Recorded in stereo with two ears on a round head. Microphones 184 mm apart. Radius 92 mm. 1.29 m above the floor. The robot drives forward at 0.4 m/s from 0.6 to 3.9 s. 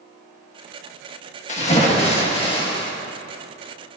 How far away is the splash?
About 1.4 m.